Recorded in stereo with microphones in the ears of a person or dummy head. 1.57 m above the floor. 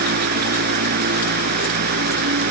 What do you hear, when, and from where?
0.0 s a fan: 50° right (ahead or behind)